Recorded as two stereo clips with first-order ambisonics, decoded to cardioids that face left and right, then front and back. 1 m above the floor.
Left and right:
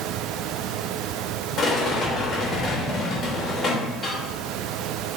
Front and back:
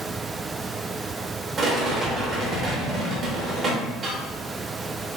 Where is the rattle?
135° left, 0.9 m.